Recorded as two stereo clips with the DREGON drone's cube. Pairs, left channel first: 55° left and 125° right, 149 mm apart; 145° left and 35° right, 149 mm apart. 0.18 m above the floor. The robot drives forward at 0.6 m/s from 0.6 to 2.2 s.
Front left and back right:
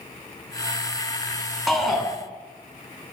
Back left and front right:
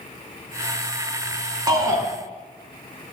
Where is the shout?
35° right, 1.8 m; by 2.0 s 45° right, 1.7 m.